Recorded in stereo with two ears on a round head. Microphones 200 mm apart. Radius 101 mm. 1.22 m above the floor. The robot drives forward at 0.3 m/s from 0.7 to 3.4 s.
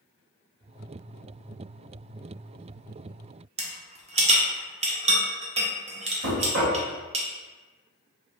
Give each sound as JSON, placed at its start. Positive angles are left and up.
{"t": 3.6, "sound": "a rattle", "side_deg": -30, "distance_m": 0.6}
{"t": 6.2, "sound": "knocking", "side_deg": -50, "distance_m": 0.8}